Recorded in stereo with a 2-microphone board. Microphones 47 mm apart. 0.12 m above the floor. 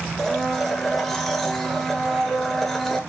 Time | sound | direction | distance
0.2 | a blender | 5° left (ahead or behind) | 0.8 m